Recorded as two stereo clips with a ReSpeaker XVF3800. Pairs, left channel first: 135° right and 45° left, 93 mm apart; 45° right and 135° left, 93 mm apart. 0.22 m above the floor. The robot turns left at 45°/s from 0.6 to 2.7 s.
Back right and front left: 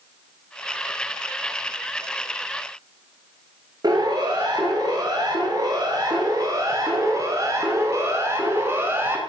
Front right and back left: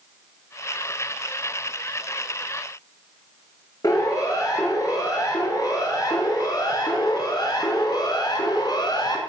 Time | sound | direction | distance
3.8 | a siren | 5° left | 5.5 m